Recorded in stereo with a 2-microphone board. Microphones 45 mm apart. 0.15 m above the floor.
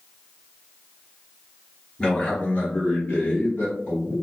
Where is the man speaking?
25° left (ahead or behind), 1.3 m; by 4.2 s 65° left (ahead or behind), 2.5 m.